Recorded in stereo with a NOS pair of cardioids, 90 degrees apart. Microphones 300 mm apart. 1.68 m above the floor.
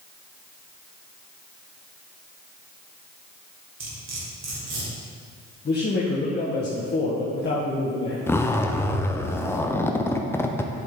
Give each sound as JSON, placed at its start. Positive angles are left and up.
{"t": 3.8, "sound": "cutlery clinking", "azimuth_deg": -60, "distance_m": 3.5}
{"t": 5.7, "sound": "a man speaking", "azimuth_deg": 35, "distance_m": 1.5}
{"t": 8.3, "sound": "a zipper", "azimuth_deg": 10, "distance_m": 0.7}